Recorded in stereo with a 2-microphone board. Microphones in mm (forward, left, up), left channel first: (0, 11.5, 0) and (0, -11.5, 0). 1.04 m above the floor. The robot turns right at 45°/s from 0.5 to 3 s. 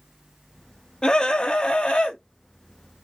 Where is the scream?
45° left, 1.3 m; by 2.2 s 95° left, 1.3 m.